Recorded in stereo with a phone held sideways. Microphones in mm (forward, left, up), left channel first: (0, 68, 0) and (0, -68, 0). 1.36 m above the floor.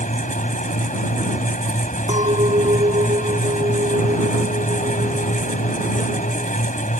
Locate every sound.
0.0 s a fan: 70° left (ahead or behind)
2.1 s a clink: 55° right (ahead or behind)